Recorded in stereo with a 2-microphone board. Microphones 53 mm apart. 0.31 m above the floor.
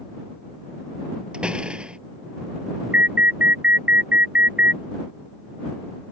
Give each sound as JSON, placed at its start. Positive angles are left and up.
{"t": 1.3, "sound": "a door slam", "side_deg": -20}
{"t": 2.9, "sound": "an alarm", "side_deg": -35}